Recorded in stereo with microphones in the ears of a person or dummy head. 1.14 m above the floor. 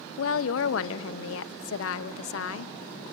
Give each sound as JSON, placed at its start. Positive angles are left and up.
{"t": 0.2, "sound": "a woman speaking", "side_deg": 75, "distance_m": 0.9}